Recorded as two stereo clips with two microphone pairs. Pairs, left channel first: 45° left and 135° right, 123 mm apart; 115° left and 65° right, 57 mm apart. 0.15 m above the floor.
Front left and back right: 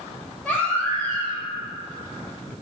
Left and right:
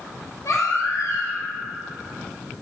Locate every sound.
0.5 s a baby crying: 125° left, 2 m